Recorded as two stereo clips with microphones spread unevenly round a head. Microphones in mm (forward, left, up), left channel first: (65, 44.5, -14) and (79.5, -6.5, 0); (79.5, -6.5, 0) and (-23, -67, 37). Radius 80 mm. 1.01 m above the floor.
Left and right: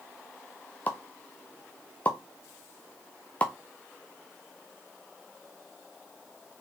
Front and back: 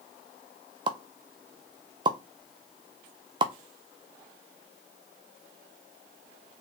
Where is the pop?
145° left, 0.5 m.